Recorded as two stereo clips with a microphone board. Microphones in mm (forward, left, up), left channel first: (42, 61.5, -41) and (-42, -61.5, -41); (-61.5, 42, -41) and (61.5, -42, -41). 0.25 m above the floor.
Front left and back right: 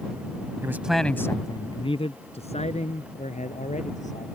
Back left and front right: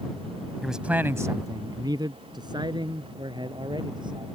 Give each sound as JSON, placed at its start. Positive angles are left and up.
{"t": 0.6, "sound": "a man speaking", "azimuth_deg": -120}